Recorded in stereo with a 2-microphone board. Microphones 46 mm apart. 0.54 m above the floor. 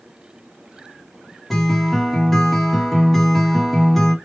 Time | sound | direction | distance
1.5 | a guitar | 5° left (ahead or behind) | 0.9 m